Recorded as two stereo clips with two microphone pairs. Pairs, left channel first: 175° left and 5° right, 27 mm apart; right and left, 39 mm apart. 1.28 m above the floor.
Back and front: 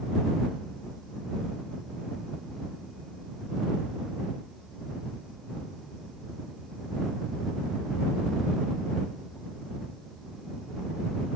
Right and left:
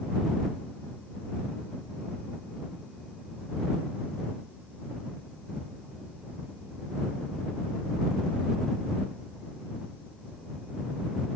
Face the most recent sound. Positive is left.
No sound to turn to.